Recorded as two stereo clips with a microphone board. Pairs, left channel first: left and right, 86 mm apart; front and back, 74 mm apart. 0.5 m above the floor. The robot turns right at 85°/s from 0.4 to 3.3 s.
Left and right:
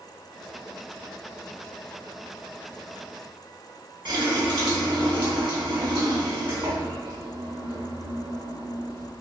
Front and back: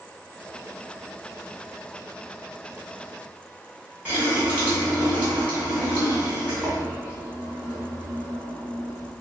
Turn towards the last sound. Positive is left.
turn(degrees=-110)